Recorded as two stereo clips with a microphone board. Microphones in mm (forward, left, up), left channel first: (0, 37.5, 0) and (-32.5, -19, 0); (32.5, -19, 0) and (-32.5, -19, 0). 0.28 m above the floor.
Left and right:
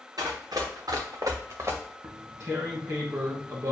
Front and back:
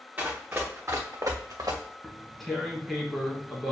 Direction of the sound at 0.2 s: 115° right.